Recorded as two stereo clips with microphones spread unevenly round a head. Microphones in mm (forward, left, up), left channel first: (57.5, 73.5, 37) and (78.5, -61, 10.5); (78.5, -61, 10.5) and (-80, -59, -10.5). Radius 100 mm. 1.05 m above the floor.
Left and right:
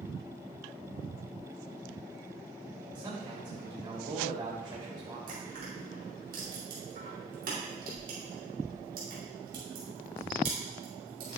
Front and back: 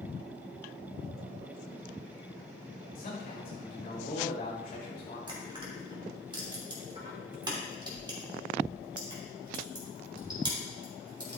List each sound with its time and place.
3.0 s a man speaking: 30° right, 3 m
5.3 s crushing: 120° right, 3 m